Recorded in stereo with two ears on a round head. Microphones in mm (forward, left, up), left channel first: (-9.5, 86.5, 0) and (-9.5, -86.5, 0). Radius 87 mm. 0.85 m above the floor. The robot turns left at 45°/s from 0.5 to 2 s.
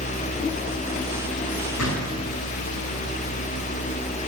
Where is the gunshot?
80° left, 6.5 m; by 2.2 s 70° left (ahead or behind), 6.5 m.